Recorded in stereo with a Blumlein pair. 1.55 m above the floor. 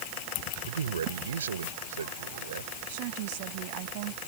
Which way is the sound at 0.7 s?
65° right.